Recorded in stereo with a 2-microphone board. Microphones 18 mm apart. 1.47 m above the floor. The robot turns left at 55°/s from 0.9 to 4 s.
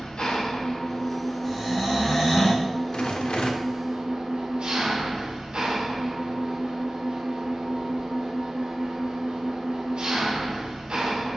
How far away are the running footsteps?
I don't hear running footsteps.